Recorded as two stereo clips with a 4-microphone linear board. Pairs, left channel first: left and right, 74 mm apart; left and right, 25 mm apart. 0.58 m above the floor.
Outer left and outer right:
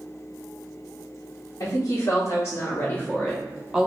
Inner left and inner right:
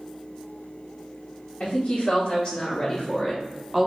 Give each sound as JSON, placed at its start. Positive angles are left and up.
{"t": 1.6, "sound": "a woman speaking", "side_deg": 55, "distance_m": 1.4}